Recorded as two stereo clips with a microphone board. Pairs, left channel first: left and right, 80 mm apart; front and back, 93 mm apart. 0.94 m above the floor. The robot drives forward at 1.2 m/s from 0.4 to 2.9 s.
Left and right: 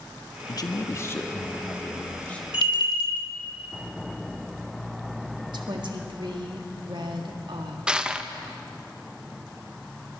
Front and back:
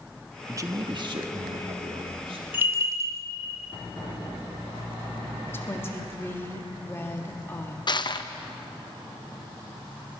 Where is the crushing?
10° right, 0.7 m.